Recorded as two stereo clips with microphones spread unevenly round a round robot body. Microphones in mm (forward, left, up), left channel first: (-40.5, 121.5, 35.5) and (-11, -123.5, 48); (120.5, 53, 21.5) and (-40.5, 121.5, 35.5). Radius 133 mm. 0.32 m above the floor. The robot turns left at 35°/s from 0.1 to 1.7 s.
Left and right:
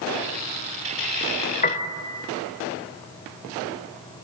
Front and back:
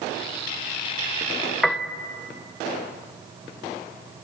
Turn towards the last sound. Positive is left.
turn(degrees=60)